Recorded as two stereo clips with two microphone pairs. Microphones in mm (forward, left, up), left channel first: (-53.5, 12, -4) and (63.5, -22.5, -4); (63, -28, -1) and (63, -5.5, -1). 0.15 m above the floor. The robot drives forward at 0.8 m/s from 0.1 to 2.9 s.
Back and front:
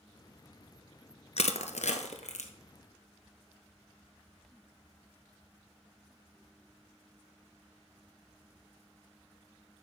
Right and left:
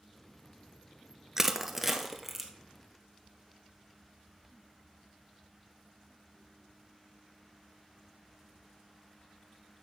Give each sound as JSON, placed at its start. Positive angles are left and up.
{"t": 1.4, "sound": "crushing", "azimuth_deg": 155, "distance_m": 0.7}